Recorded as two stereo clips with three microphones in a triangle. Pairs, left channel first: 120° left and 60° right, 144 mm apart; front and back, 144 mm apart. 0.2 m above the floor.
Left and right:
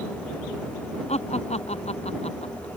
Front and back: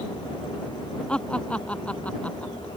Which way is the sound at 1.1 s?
85° left.